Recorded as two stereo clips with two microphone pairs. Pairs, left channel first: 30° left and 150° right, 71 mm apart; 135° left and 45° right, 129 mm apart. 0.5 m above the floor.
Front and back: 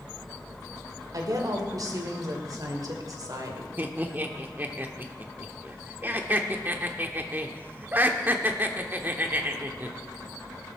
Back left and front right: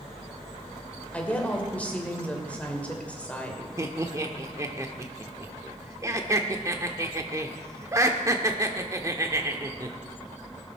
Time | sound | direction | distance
1.1 | a woman speaking | 150° right | 2.5 m
3.8 | laughter | 105° right | 1.0 m